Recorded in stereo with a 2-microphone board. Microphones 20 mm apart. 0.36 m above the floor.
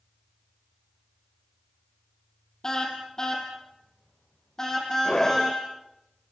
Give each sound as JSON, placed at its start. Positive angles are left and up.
{"t": 2.6, "sound": "a car horn", "side_deg": 30, "distance_m": 4.5}
{"t": 5.0, "sound": "a scream", "side_deg": 30, "distance_m": 1.4}